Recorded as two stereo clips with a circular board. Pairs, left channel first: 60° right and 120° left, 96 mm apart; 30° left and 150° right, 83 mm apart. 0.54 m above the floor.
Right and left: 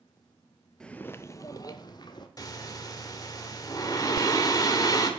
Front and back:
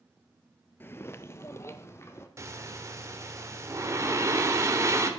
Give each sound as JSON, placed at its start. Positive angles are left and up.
{"t": 0.8, "sound": "footsteps", "azimuth_deg": 15, "distance_m": 0.5}
{"t": 2.4, "sound": "breathing", "azimuth_deg": -100, "distance_m": 1.2}